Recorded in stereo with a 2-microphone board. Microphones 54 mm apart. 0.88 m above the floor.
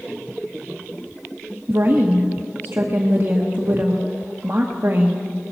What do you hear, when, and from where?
1.7 s a woman speaking: 40° right (ahead or behind), 1.0 m